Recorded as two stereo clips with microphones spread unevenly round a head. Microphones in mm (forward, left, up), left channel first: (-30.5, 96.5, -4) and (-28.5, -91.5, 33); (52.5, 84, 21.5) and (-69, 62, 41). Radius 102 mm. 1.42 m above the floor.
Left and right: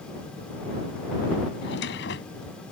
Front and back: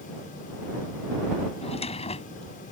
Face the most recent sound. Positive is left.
turn(degrees=50)